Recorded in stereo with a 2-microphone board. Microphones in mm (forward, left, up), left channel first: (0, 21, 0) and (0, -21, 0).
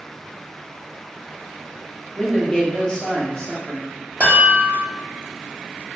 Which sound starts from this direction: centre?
A man speaking, at 2.2 s.